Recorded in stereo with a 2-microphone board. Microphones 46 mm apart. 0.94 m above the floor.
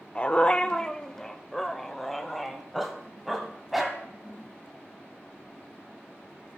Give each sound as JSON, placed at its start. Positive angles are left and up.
{"t": 0.1, "sound": "a dog barking", "side_deg": 30, "distance_m": 0.6}